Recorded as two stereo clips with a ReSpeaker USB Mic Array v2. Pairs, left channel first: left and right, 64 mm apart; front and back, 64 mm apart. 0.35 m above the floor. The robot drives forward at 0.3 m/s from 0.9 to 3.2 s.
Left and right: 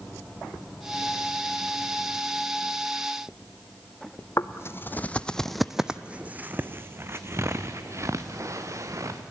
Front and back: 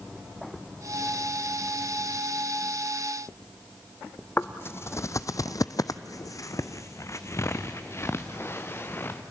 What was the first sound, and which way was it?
Footsteps, 55° left.